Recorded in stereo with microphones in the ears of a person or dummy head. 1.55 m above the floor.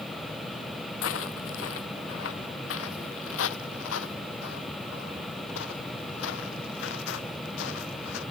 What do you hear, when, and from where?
1.0 s footsteps: 80° left; by 8.2 s 75° left (ahead or behind)